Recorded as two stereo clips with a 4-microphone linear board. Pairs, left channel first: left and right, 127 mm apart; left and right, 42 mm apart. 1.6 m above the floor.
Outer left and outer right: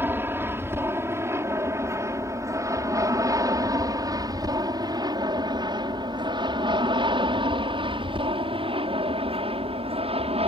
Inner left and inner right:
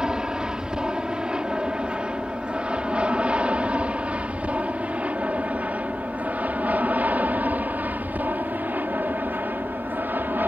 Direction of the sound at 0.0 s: 15° right (ahead or behind).